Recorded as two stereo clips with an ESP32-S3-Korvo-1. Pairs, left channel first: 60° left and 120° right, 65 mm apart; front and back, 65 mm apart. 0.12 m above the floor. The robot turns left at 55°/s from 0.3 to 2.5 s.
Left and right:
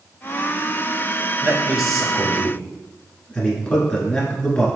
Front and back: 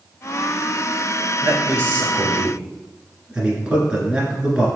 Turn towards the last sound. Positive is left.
turn(degrees=120)